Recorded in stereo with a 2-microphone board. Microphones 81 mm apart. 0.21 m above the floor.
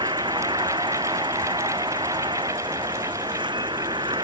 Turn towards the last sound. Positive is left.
turn(degrees=-80)